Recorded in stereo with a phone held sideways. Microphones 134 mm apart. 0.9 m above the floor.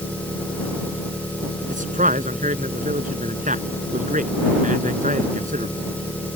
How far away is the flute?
I don't hear a flute.